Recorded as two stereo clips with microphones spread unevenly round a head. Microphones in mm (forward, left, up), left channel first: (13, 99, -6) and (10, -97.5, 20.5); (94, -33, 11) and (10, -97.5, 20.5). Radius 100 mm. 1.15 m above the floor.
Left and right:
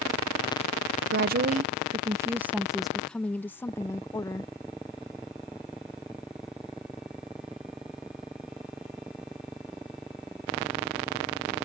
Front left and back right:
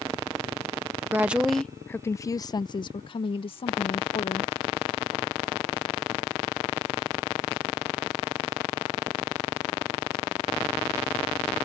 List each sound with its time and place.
1.1 s a woman speaking: 70° right; by 4.5 s 20° left